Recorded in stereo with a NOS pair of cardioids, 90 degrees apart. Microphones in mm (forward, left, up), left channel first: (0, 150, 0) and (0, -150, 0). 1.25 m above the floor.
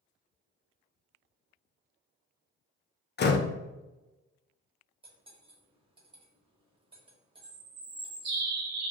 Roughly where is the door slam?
Ahead left.